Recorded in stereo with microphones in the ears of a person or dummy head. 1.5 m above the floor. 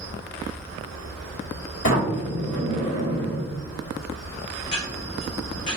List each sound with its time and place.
0.0 s an insect: 30° left (ahead or behind), 1.4 m
1.8 s a sliding door: 60° left (ahead or behind), 1.7 m
4.6 s ticking: 20° left (ahead or behind), 0.6 m